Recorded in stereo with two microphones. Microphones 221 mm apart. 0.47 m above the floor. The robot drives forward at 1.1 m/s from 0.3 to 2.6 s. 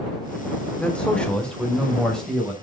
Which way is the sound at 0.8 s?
5° left (ahead or behind).